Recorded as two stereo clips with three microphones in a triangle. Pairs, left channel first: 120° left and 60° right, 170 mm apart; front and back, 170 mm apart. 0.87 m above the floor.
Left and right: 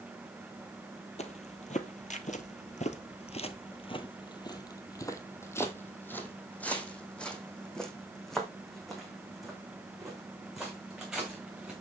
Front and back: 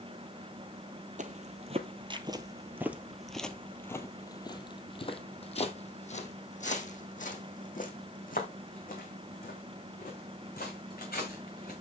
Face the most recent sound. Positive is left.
turn(degrees=25)